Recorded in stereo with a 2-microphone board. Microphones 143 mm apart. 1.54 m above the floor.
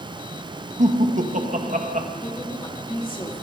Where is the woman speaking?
40° left (ahead or behind), 3.5 m.